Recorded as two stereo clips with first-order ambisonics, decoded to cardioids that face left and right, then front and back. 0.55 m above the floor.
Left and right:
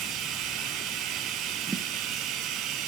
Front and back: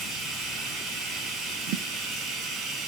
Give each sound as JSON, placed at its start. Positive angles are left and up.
{"t": 0.0, "sound": "running water", "azimuth_deg": -125, "distance_m": 3.0}
{"t": 1.7, "sound": "a thud", "azimuth_deg": -165, "distance_m": 1.4}